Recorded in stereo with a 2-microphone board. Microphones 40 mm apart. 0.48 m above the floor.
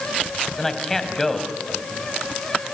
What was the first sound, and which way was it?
A man speaking, 5° left (ahead or behind).